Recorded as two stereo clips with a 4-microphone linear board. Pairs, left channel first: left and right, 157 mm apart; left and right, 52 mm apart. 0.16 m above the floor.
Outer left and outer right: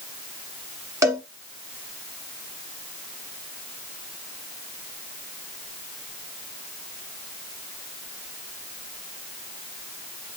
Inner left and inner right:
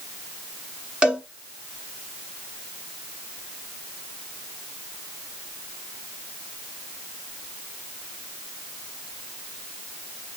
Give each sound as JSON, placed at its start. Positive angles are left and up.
{"t": 1.0, "sound": "a cowbell", "side_deg": -20, "distance_m": 1.3}